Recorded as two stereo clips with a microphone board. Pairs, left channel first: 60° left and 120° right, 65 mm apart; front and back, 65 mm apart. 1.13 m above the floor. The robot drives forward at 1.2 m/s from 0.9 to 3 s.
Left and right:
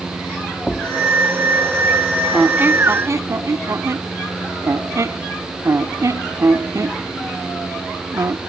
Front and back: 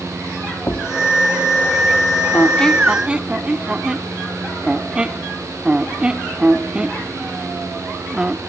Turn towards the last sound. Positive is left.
turn(degrees=-110)